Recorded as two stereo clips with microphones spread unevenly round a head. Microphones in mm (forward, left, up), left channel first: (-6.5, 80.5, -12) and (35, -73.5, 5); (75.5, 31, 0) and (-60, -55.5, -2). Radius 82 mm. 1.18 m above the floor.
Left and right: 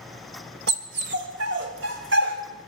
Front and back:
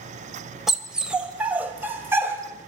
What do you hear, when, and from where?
0.7 s a dog barking: 60° right, 2.5 m; by 2.7 s 75° right, 3.5 m